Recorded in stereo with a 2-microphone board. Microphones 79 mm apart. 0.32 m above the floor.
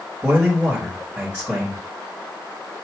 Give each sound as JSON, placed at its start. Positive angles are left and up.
{"t": 0.2, "sound": "a man speaking", "side_deg": -15, "distance_m": 1.2}